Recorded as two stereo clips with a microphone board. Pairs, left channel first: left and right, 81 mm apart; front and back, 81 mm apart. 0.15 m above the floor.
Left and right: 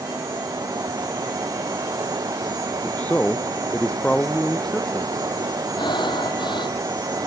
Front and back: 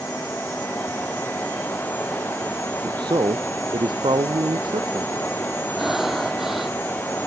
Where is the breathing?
95° left.